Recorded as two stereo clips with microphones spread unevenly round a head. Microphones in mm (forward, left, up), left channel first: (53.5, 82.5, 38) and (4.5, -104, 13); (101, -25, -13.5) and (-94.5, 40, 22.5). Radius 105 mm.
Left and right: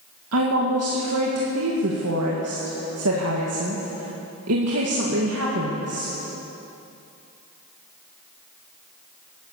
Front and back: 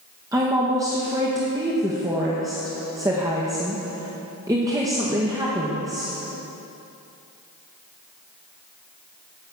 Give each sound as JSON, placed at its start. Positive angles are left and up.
{"t": 0.3, "sound": "a woman speaking", "azimuth_deg": -125, "distance_m": 1.8}